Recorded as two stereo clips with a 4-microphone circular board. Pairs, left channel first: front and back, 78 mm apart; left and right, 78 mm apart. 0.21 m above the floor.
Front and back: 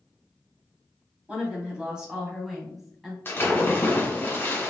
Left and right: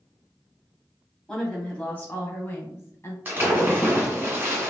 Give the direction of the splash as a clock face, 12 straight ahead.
1 o'clock.